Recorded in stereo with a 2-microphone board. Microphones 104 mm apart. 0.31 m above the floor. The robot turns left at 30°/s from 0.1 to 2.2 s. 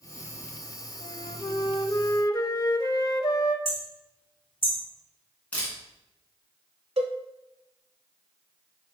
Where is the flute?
100° left, 0.5 m; by 3.5 s 60° left, 0.5 m.